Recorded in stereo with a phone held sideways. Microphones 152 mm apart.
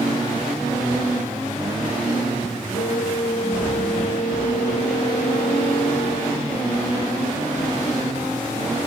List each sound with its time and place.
2.7 s a flute: 65° left (ahead or behind)